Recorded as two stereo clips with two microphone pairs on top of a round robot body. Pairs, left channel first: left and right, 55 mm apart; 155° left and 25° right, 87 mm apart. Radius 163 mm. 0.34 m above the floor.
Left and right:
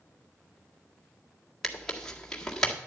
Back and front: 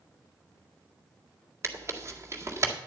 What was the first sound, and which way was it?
Tearing paper, 5° left.